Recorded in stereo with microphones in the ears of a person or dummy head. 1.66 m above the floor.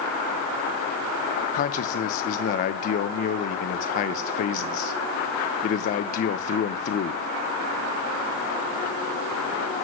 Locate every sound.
1.5 s a man speaking: 45° left (ahead or behind), 0.6 m